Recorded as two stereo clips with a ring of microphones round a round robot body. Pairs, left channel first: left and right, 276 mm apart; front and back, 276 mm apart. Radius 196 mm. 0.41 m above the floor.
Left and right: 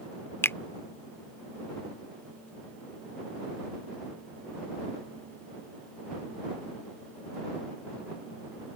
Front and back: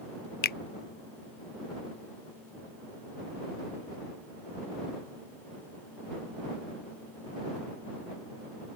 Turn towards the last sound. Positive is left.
turn(degrees=15)